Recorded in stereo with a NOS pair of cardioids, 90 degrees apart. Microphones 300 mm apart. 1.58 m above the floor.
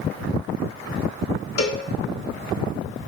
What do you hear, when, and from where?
1.6 s a cowbell: 55° left, 1.7 m